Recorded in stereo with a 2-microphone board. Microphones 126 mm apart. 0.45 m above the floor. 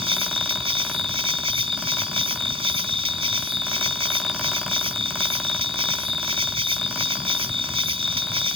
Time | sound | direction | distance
0.0 | an insect | 45° right (ahead or behind) | ?